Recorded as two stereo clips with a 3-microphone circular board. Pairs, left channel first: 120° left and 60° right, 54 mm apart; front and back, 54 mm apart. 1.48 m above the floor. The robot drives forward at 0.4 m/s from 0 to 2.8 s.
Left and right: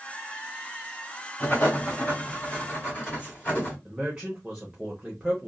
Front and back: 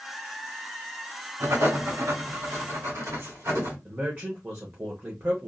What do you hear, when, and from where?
1.4 s writing: 170° left, 1.5 m; by 3.8 s 175° left, 2 m
3.9 s a man speaking: 135° right, 0.8 m